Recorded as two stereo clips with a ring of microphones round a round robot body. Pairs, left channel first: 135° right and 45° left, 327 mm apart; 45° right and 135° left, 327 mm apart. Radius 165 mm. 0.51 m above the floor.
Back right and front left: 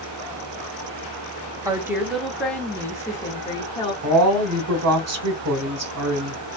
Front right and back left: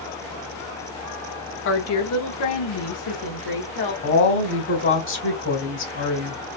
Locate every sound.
1.6 s a woman speaking: 30° right, 0.9 m; by 3.9 s 60° right, 1.8 m
4.0 s a woman speaking: 5° left, 1.5 m